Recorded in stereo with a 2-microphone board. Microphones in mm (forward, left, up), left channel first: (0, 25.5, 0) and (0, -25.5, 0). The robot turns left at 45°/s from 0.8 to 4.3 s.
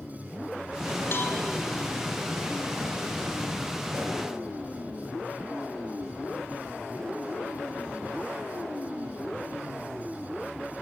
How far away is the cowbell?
About 2 m.